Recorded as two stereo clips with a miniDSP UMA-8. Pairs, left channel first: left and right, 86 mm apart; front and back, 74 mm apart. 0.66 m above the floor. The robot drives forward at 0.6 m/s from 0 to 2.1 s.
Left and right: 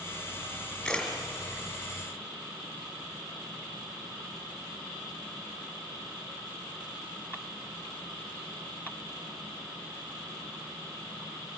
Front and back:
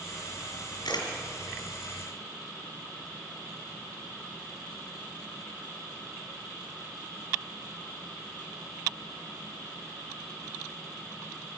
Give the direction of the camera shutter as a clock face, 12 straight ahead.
12 o'clock.